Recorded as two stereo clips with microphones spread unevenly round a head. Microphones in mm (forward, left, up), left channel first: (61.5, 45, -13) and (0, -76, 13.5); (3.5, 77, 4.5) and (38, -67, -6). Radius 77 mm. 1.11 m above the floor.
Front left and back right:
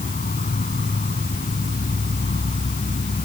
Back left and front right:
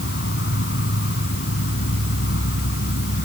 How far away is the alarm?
I don't hear an alarm.